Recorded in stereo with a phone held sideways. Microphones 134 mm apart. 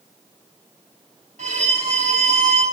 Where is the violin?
65° right (ahead or behind), 3.5 m.